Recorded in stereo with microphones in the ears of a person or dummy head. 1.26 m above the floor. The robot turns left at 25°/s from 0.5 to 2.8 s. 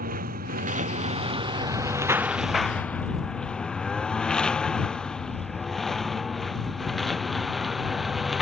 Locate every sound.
0.0 s a lawn mower: 50° right (ahead or behind); by 8.4 s 5° right (ahead or behind)